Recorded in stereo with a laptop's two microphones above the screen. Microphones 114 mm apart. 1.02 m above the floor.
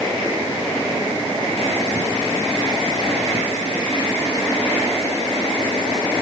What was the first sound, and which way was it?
Only background noise.